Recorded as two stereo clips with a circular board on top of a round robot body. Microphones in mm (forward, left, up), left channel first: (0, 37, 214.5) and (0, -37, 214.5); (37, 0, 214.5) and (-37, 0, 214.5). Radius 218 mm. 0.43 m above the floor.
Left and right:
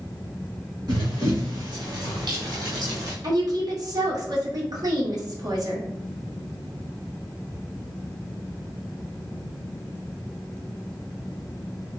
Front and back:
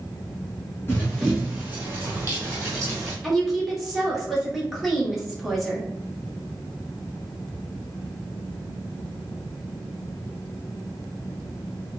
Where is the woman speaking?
90° right, 1.9 m.